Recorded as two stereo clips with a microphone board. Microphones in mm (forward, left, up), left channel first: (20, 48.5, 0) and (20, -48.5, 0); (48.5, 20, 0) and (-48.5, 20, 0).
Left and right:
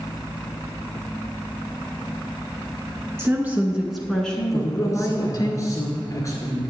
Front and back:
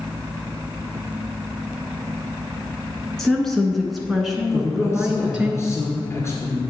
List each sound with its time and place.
3.2 s a woman speaking: 80° right, 1.1 m; by 5.5 s 100° left, 1.4 m
4.5 s a man speaking: 50° left, 1.9 m